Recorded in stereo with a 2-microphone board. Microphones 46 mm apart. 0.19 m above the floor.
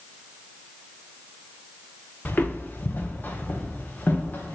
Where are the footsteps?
45° left (ahead or behind), 1.3 m; by 4.5 s 40° left (ahead or behind), 2.5 m.